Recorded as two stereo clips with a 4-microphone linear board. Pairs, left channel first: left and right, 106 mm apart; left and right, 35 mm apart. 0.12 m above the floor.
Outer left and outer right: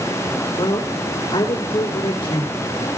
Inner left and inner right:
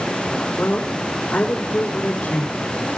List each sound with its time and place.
0.6 s a man speaking: 60° left (ahead or behind), 5 m